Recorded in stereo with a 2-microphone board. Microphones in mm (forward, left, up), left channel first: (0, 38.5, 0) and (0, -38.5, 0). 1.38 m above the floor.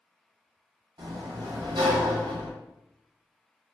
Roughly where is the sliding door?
Right.